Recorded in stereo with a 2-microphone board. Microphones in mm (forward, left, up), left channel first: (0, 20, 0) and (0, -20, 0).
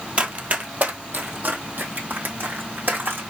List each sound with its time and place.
0.2 s running footsteps: 35° right (ahead or behind), 1.3 m; by 3.2 s 60° right (ahead or behind), 3 m